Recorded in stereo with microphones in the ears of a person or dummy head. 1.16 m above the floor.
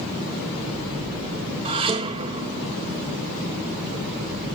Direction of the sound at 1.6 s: 30° right (ahead or behind).